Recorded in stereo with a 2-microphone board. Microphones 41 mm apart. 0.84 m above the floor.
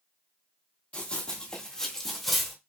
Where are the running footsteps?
35° left (ahead or behind), 1.6 m; by 2.5 s centre (ahead or behind), 1.6 m.